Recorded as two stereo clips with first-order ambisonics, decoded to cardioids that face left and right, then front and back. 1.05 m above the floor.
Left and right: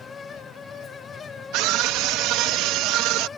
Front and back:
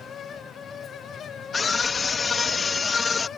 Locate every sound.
1.5 s a scream: 70° right